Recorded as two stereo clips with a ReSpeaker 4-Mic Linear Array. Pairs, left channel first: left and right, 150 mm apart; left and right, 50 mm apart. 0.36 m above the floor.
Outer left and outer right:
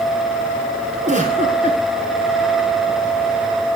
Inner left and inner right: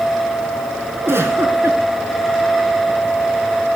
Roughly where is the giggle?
Right.